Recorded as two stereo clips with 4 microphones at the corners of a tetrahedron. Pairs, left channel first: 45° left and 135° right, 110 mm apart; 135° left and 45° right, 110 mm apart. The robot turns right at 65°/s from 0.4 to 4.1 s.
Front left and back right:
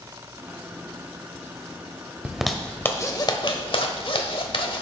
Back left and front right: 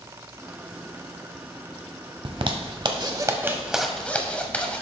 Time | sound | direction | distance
2.2 | a zipper | 60° right | 0.9 m